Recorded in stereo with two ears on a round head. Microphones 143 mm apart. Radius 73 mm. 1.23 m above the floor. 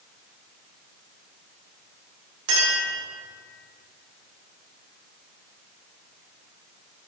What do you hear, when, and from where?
2.5 s a clink: 75° right (ahead or behind), 2.5 m